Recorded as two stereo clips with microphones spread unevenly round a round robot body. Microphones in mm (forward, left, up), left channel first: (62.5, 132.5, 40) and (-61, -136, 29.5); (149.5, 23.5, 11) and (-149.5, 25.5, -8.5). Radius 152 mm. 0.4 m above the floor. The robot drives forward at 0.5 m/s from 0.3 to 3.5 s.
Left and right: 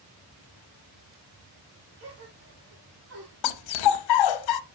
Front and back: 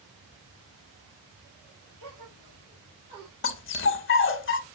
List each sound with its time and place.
2.0 s a gasp: 155° right, 4.5 m; by 3.3 s 160° right, 5 m
3.4 s a dog barking: 50° left, 0.7 m